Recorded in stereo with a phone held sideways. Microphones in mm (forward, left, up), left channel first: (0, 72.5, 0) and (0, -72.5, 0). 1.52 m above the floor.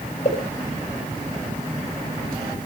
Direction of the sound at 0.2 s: 45° left (ahead or behind).